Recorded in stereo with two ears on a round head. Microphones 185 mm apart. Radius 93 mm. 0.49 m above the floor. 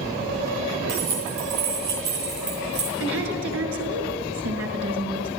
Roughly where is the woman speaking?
Right.